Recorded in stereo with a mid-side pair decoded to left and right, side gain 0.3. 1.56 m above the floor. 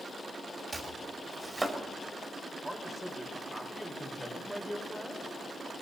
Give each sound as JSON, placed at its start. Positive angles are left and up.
{"t": 0.7, "sound": "chopping", "azimuth_deg": -35, "distance_m": 4.5}
{"t": 2.6, "sound": "a man speaking", "azimuth_deg": -15, "distance_m": 5.5}